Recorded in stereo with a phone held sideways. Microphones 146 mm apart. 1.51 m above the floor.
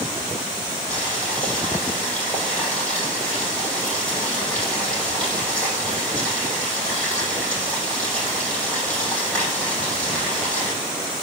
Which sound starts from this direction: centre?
Boiling, at 0.9 s.